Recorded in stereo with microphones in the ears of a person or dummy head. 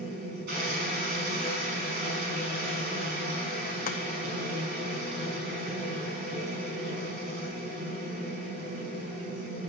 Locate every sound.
0.0 s a machine running: 55° right (ahead or behind), 5 m
3.9 s chopping: 45° left (ahead or behind), 0.8 m